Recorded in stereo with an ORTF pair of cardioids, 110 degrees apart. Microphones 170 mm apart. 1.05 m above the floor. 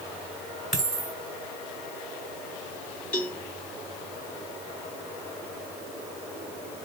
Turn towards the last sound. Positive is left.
turn(degrees=5)